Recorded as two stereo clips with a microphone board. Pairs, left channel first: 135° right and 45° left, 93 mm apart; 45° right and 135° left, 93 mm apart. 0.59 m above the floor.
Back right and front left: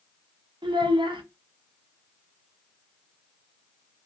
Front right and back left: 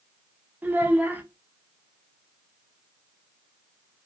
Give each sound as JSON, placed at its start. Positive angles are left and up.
{"t": 0.6, "sound": "a child speaking", "azimuth_deg": 65, "distance_m": 0.6}